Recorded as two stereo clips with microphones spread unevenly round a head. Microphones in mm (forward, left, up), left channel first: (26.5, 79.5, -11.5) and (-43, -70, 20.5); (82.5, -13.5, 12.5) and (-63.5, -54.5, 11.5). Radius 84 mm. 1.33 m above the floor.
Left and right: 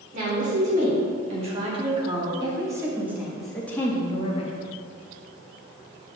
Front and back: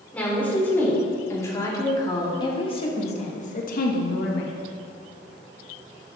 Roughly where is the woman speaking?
Ahead right.